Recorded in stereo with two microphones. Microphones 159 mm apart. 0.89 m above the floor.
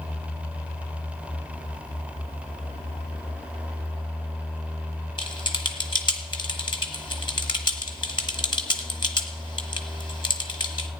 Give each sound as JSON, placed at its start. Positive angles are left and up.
{"t": 5.2, "sound": "typing on a keyboard", "side_deg": 30, "distance_m": 1.2}